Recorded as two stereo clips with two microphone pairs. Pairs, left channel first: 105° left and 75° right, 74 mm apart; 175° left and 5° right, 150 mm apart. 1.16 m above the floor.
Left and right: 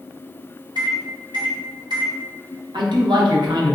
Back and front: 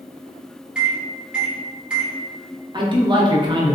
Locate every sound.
0.8 s a microwave: 90° right, 1.0 m
2.7 s a man speaking: 65° right, 0.8 m